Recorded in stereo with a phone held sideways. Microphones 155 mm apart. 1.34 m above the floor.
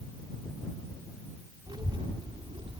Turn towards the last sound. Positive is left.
turn(degrees=-40)  # may be behind; listen again after turning